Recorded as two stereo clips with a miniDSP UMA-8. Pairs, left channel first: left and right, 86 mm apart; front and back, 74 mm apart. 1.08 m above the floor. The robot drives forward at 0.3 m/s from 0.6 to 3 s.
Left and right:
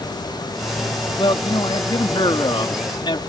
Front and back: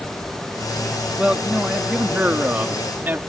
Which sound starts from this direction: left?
A man speaking, at 1.2 s.